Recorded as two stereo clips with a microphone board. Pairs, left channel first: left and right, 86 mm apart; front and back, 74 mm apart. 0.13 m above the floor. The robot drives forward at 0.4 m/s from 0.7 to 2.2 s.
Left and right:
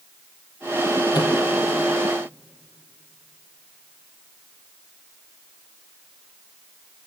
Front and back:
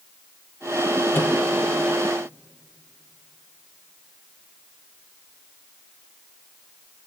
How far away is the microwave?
About 3 m.